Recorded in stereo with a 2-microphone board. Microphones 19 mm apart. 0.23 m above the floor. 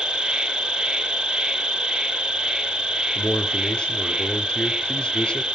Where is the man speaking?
65° left (ahead or behind), 3 m.